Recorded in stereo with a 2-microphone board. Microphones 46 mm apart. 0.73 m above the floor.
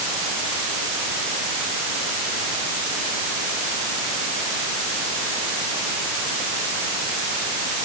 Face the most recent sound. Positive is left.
No sound to turn to.